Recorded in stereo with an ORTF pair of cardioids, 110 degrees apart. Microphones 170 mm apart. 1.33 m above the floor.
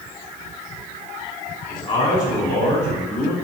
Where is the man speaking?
25° left, 3 m; by 3.3 s 10° left, 4 m.